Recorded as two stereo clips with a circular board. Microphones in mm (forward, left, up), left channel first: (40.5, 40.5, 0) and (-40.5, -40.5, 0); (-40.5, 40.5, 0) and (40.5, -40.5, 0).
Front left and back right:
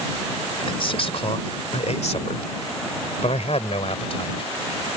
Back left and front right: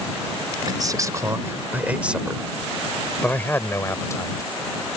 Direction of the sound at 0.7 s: 5° left.